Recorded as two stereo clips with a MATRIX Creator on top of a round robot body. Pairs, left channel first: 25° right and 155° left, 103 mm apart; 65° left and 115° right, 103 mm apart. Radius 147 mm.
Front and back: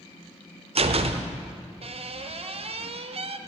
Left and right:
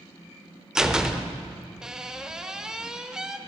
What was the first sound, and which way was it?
A door slam, 165° left.